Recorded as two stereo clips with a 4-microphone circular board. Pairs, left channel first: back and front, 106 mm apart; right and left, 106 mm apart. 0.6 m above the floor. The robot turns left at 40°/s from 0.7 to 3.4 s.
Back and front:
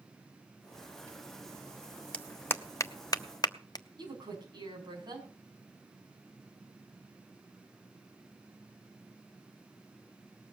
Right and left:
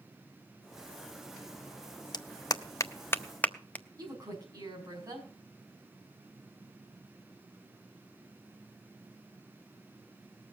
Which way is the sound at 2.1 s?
105° right.